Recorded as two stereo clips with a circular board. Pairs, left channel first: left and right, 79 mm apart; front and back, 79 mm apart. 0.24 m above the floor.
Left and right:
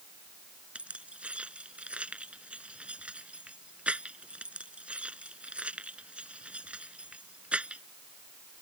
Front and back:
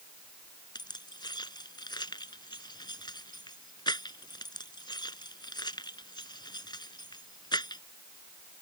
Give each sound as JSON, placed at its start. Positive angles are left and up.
{"t": 0.8, "sound": "keys jangling", "azimuth_deg": -15}